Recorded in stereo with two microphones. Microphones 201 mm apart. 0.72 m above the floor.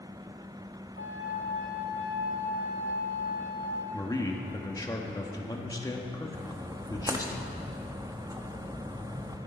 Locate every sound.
1.0 s a flute: 70° left (ahead or behind), 2 m
3.9 s a man speaking: 15° left (ahead or behind), 1.2 m
6.3 s a splash: 15° right (ahead or behind), 0.9 m